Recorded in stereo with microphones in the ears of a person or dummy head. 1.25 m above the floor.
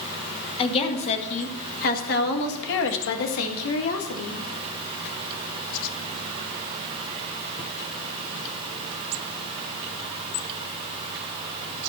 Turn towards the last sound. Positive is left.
turn(degrees=85)